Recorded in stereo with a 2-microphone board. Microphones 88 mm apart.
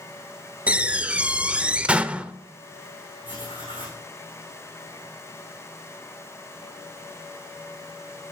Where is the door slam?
15° right (ahead or behind), 0.6 m.